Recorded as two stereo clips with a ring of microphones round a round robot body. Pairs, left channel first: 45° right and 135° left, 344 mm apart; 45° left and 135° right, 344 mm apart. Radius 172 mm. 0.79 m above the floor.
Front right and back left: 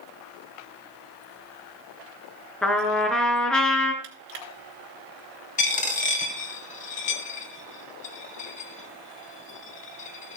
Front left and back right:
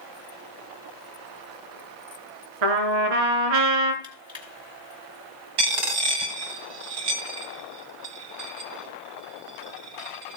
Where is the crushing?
150° left, 3.5 m.